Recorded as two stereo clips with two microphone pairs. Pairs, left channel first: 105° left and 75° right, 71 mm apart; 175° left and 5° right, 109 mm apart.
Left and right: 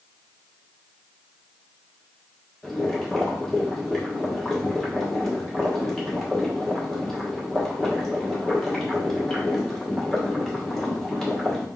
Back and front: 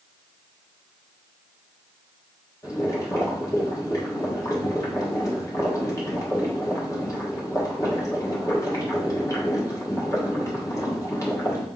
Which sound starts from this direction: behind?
Boiling, at 2.6 s.